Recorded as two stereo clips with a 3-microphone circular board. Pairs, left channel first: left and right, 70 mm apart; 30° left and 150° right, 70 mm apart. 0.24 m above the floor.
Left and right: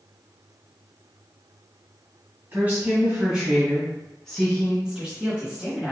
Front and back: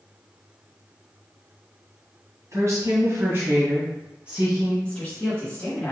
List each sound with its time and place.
2.5 s a woman speaking: 140° right, 1.7 m; by 4.7 s 130° left, 1.3 m
4.8 s a woman speaking: 20° right, 1.2 m